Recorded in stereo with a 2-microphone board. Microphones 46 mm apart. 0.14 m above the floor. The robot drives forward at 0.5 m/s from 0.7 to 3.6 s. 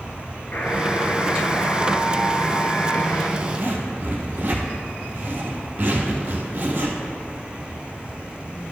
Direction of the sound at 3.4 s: 40° right (ahead or behind).